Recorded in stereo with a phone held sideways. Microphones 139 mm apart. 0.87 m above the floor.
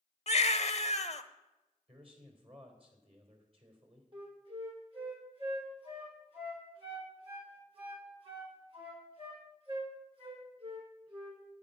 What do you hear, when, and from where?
0.3 s a baby crying: 50° left (ahead or behind), 0.9 m
1.9 s a man speaking: 40° right (ahead or behind), 3.5 m
4.1 s a flute: 45° right (ahead or behind), 3.5 m